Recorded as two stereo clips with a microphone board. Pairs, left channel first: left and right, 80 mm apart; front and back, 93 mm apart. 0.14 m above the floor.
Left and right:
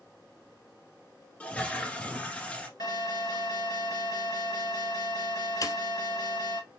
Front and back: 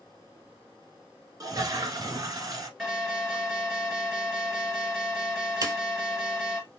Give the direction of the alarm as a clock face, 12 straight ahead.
9 o'clock.